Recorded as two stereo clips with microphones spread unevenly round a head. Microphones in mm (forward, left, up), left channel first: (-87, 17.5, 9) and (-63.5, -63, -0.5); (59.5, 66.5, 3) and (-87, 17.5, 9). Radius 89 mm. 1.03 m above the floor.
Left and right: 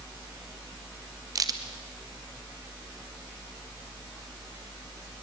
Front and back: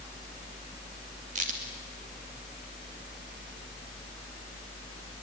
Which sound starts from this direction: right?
A crack, at 1.4 s.